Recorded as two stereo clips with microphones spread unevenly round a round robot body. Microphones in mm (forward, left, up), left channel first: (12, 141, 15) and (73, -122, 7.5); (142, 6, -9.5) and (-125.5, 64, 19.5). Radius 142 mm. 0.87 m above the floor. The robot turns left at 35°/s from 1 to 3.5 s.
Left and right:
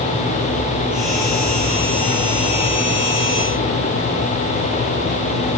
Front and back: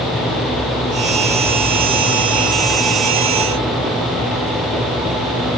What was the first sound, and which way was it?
Only background noise.